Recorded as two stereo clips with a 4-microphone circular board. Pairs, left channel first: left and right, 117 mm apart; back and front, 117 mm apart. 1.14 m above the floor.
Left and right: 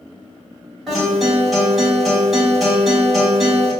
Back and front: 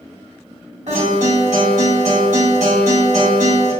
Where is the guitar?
5° right, 2.0 m.